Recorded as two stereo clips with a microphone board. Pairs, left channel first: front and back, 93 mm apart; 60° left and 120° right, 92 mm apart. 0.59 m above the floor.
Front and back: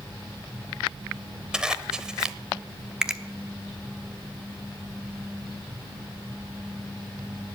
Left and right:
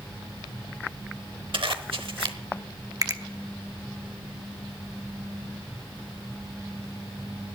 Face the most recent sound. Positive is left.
turn(degrees=-100)